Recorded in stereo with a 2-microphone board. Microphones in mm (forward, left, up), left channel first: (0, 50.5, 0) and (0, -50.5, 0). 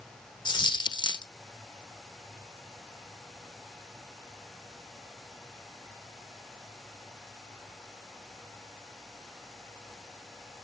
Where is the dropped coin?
50° left (ahead or behind), 1.0 m.